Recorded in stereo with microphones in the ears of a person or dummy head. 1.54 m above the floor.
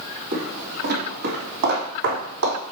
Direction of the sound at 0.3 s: 55° right (ahead or behind).